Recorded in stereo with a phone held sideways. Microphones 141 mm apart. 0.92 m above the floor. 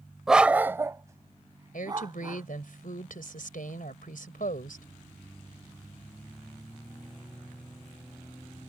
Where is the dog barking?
5° right (ahead or behind); by 2.5 s 30° right (ahead or behind).